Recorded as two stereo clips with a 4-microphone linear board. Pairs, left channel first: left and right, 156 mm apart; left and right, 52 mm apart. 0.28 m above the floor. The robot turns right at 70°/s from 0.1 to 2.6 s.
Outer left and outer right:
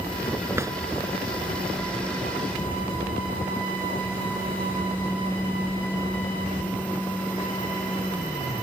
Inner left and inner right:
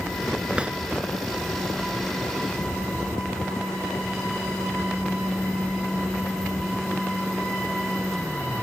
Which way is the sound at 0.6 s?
15° right (ahead or behind).